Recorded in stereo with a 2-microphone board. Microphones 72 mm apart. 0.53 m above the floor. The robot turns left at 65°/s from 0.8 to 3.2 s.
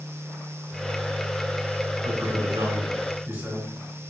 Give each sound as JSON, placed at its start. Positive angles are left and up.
{"t": 2.0, "sound": "a man speaking", "azimuth_deg": -70, "distance_m": 4.0}